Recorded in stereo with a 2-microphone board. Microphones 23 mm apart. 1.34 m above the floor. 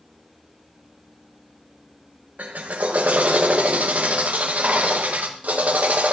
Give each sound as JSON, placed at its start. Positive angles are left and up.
{"t": 2.4, "sound": "a drill", "side_deg": -80, "distance_m": 1.3}